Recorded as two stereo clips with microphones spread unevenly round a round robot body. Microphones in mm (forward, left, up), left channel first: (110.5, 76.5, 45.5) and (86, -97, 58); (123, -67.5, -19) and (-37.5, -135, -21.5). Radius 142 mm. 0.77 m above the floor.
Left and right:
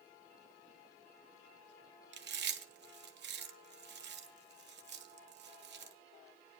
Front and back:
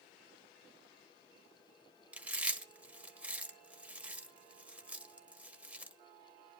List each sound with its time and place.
2.1 s chewing: 75° right, 1.5 m